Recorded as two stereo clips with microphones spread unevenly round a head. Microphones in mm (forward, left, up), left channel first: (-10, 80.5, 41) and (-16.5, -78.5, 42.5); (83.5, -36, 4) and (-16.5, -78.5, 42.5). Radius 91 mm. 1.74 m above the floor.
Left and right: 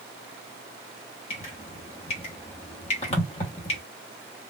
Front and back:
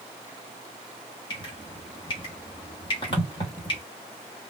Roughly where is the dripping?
Left.